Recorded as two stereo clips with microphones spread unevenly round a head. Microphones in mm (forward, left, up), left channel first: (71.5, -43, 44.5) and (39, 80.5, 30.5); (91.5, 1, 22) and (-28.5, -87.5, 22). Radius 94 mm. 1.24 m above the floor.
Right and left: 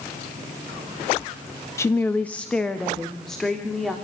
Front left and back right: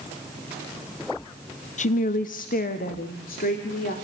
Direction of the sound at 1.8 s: 5° right.